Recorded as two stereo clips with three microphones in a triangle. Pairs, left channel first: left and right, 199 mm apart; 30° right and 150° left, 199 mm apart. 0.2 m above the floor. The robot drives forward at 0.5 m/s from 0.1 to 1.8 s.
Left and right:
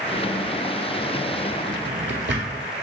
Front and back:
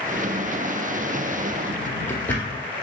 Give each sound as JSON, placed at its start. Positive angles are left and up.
{"t": 1.7, "sound": "a drawer", "azimuth_deg": -110, "distance_m": 0.8}